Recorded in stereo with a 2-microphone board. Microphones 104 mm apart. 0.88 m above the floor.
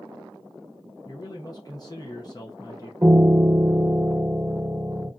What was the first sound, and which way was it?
A man speaking, 40° left (ahead or behind).